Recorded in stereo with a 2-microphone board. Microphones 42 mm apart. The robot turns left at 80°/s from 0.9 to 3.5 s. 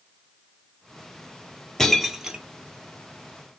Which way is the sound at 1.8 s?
10° left (ahead or behind).